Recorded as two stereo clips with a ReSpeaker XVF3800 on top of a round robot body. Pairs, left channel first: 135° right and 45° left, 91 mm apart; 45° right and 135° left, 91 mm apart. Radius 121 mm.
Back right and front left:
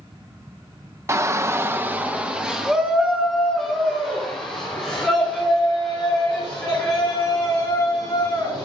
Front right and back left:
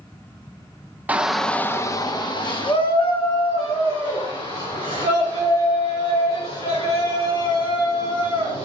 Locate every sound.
1.1 s a shout: 75° left, 0.9 m; by 8.7 s 50° right, 7 m